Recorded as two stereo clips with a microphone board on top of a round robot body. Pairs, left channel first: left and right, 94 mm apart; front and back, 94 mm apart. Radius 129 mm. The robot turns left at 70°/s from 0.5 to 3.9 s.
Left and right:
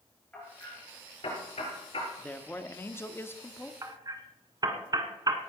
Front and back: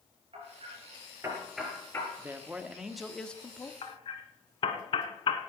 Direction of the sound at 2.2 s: 150° left.